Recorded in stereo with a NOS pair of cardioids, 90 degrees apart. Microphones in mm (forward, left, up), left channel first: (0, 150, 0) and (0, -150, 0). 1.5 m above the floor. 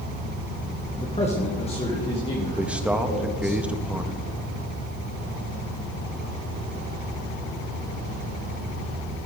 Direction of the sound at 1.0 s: 25° left.